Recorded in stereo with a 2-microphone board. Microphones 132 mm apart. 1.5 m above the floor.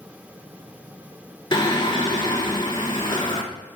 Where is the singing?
40° left (ahead or behind), 1.4 m.